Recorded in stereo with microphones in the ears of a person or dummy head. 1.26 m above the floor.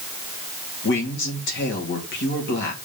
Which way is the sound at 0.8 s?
60° left (ahead or behind).